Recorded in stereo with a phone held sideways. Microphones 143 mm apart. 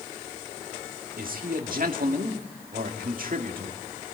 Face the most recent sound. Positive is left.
turn(degrees=-70)  # may be behind; listen again after turning